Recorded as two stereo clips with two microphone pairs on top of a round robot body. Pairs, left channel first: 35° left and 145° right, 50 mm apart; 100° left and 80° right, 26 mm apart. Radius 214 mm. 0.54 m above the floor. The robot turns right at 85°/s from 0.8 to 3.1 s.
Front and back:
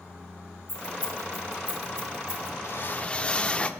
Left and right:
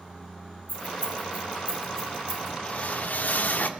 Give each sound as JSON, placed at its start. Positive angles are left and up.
{"t": 0.7, "sound": "keys jangling", "azimuth_deg": 70, "distance_m": 6.0}
{"t": 2.6, "sound": "a whoosh", "azimuth_deg": 60, "distance_m": 1.4}